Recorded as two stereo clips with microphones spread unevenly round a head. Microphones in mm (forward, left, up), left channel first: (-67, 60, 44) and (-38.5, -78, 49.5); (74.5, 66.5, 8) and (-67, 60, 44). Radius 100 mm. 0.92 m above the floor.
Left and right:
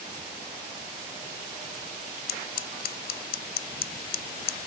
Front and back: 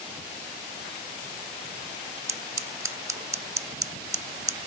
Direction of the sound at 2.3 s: 115° left.